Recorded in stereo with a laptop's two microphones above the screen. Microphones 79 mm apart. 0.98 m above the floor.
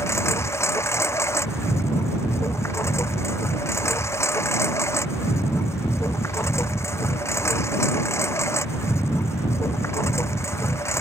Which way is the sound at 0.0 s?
30° left (ahead or behind).